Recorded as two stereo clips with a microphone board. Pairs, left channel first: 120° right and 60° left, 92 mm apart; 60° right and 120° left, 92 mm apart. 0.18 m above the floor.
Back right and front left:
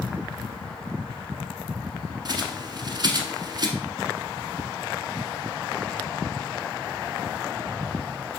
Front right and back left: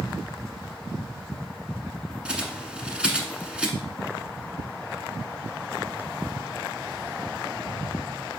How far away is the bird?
About 1.0 m.